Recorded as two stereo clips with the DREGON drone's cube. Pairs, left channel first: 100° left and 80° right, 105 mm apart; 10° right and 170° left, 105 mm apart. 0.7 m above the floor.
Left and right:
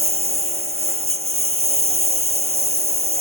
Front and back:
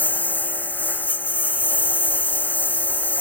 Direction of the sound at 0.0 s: 85° right.